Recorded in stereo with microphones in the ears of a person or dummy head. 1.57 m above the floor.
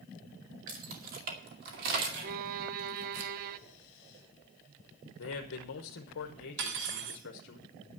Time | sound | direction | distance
0.7 | keys jangling | 40° right (ahead or behind) | 1.9 m
2.2 | a violin | 50° right (ahead or behind) | 0.6 m
5.2 | a man speaking | 65° left (ahead or behind) | 1.0 m
6.6 | cutlery clinking | 65° right (ahead or behind) | 1.7 m